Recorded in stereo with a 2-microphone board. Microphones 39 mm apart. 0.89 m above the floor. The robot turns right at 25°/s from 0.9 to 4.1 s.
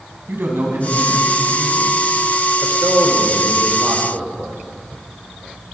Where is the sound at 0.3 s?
80° right, 5.5 m; by 1.9 s 75° right (ahead or behind), 5.5 m.